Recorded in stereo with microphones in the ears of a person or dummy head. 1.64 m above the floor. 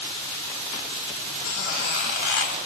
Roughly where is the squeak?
Left.